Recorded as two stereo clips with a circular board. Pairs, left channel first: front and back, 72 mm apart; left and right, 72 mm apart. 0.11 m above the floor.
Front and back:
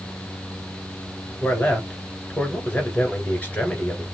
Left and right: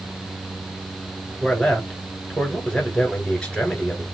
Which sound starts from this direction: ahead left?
A man speaking, at 1.4 s.